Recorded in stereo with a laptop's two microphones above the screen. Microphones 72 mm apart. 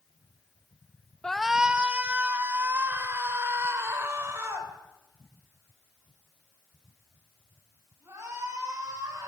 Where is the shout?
10° left (ahead or behind), 0.7 m; by 9.3 s 40° right (ahead or behind), 9.5 m.